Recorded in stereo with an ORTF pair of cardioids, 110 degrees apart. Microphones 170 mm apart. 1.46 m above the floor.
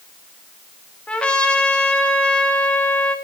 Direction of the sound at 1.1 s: 5° left.